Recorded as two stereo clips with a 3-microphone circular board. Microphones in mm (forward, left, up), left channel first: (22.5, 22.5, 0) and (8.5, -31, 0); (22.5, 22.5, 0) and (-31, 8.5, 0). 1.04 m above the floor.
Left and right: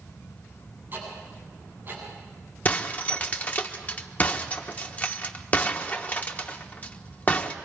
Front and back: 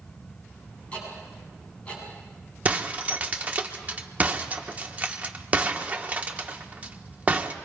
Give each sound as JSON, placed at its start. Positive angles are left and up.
{"t": 0.9, "sound": "ticking", "azimuth_deg": -50, "distance_m": 8.0}
{"t": 2.6, "sound": "breaking glass", "azimuth_deg": 135, "distance_m": 1.2}